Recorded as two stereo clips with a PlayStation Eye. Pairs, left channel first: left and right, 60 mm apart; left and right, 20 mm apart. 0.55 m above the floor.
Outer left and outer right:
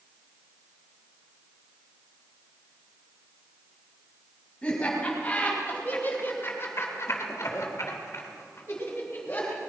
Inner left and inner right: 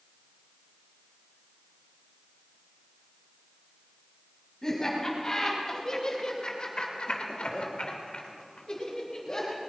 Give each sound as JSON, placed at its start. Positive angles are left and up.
{"t": 4.6, "sound": "laughter", "side_deg": 20, "distance_m": 5.0}